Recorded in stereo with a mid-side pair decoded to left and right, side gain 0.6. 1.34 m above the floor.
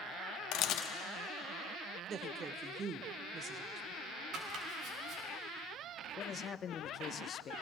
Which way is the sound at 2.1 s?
40° right.